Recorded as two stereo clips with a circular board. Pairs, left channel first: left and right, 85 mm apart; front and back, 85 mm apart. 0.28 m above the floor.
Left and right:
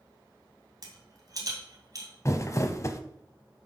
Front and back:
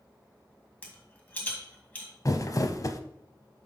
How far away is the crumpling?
About 0.6 m.